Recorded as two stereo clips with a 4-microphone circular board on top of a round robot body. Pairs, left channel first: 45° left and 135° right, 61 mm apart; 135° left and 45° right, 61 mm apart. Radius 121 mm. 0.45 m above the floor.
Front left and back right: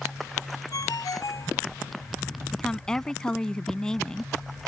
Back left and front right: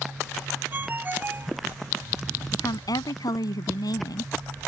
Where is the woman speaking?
125° left.